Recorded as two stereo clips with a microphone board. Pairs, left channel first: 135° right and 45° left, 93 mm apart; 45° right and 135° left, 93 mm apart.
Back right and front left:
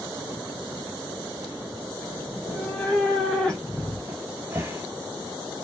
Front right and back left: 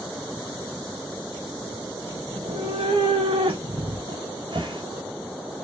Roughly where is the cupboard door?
Left.